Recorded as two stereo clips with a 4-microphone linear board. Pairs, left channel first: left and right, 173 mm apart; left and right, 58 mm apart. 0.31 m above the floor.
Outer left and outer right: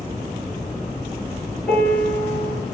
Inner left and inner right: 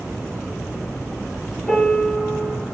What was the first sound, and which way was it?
A piano, 5° left (ahead or behind).